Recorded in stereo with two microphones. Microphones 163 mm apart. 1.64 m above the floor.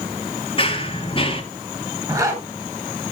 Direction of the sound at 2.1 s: 20° right (ahead or behind).